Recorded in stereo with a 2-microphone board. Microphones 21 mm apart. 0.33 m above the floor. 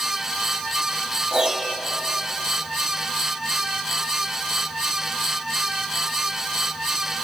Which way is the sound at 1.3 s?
30° right (ahead or behind).